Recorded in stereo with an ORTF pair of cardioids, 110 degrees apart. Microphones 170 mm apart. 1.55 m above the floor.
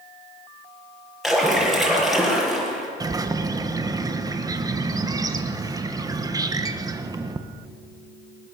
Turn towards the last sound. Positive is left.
turn(degrees=-20)